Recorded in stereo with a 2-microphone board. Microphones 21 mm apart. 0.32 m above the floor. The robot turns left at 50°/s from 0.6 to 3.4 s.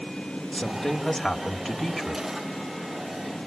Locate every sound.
0.5 s a woman speaking: 55° left, 1.3 m; by 2.2 s 30° right, 1.3 m